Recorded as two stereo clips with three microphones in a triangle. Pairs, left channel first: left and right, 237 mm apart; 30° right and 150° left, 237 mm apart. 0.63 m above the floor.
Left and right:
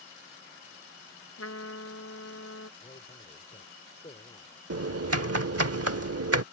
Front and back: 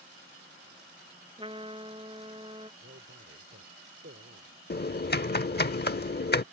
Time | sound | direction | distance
1.4 | a trumpet | 85° left | ?
2.8 | a man speaking | 140° left | ?
4.7 | typing on a keyboard | 80° right | ?